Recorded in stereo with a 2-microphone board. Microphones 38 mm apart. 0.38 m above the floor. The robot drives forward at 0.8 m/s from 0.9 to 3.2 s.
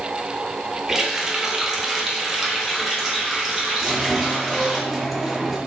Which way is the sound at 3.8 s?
5° right (ahead or behind).